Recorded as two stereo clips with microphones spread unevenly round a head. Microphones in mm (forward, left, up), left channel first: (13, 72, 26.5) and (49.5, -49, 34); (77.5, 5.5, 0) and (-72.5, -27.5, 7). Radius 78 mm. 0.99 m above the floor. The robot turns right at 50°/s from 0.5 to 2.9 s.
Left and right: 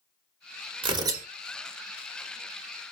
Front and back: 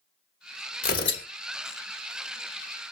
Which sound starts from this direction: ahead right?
Tearing paper, at 0.8 s.